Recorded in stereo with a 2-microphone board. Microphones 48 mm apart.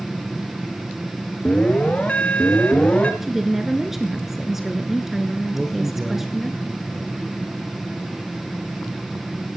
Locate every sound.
1.4 s an alarm: 30° left (ahead or behind), 1.9 m
3.2 s a woman speaking: 5° right (ahead or behind), 1.2 m
5.5 s a man speaking: 5° left (ahead or behind), 2 m